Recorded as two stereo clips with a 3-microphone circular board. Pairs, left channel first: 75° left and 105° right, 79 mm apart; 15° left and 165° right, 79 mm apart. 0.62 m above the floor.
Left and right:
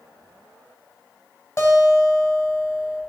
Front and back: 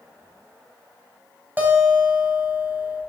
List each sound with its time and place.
1.6 s a guitar: 130° left, 4 m